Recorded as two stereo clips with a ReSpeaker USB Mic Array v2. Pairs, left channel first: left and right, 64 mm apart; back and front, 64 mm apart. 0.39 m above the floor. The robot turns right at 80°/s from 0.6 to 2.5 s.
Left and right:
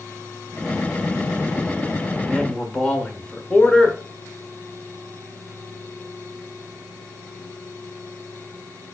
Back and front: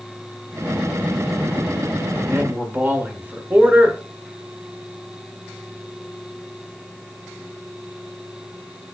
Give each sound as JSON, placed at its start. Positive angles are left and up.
{"t": 2.2, "sound": "a man speaking", "azimuth_deg": 5, "distance_m": 1.0}